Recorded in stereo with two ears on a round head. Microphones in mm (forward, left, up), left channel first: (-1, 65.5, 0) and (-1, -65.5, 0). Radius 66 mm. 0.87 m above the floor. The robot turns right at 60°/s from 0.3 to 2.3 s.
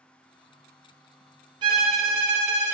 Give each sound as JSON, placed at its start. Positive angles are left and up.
{"t": 1.6, "sound": "a violin", "azimuth_deg": -140, "distance_m": 0.7}